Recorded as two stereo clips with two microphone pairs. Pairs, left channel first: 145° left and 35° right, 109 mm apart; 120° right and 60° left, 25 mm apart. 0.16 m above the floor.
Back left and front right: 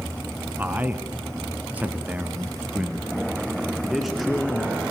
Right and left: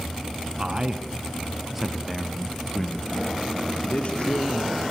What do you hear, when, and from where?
0.6 s a man speaking: 35° left, 1.8 m; by 4.8 s 125° right, 2.5 m